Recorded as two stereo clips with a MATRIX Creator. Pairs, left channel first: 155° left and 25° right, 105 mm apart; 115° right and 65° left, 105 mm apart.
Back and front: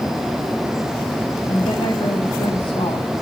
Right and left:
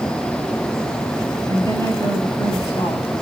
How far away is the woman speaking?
About 5 m.